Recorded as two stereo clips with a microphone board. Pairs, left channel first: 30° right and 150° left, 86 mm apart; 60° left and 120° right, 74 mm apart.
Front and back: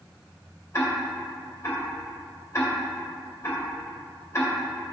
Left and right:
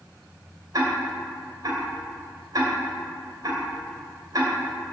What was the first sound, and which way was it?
Ticking, 85° right.